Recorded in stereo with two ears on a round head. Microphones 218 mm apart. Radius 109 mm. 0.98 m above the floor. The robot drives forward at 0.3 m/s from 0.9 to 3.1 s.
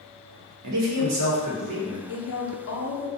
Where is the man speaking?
75° right (ahead or behind), 0.7 m; by 2.0 s 55° right (ahead or behind), 0.8 m.